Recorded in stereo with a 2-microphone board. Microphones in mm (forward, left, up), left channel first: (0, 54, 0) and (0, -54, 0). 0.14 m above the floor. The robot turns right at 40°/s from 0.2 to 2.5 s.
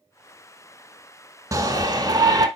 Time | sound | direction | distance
1.5 | a shout | 120° right | 1.2 m